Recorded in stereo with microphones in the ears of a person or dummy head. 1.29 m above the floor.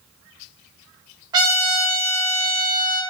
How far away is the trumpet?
About 1.4 m.